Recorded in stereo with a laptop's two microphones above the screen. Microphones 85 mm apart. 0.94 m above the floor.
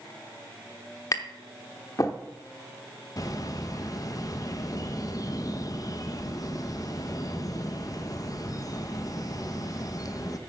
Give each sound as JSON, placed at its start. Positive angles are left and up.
{"t": 1.1, "sound": "tapping", "side_deg": 40, "distance_m": 0.9}
{"t": 3.2, "sound": "a bird", "side_deg": 40, "distance_m": 0.7}